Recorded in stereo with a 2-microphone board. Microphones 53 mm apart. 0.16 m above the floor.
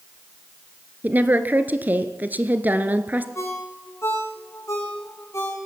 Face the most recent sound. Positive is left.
turn(degrees=60)  # may be behind; listen again after turning